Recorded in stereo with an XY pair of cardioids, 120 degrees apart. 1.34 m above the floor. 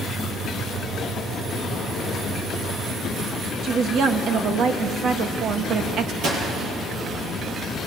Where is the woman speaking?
60° right, 2 m.